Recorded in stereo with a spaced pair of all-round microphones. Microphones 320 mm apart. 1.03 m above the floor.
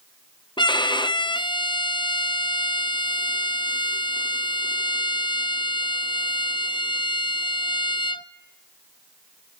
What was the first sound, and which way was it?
A violin, 15° left (ahead or behind).